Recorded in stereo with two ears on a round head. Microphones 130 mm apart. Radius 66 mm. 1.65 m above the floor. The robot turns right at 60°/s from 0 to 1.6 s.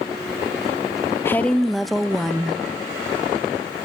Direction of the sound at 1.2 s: 15° left (ahead or behind).